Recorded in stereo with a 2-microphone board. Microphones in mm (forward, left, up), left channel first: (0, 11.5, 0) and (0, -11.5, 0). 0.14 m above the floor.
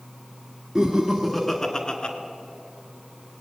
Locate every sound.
0.8 s laughter: 30° right (ahead or behind), 1.4 m; by 2.1 s 45° left (ahead or behind), 1.5 m